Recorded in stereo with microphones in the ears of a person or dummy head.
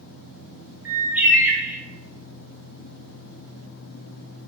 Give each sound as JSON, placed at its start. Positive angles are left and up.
{"t": 0.8, "sound": "a bird", "side_deg": -10, "distance_m": 0.6}